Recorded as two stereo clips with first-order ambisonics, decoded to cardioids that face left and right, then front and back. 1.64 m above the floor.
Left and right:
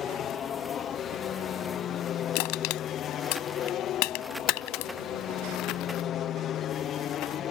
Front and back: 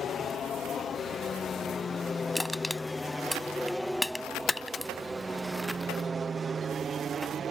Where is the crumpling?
65° left.